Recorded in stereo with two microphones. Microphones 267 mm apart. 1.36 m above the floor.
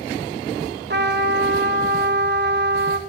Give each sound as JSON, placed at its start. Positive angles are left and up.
{"t": 0.9, "sound": "a trumpet", "side_deg": -40, "distance_m": 0.9}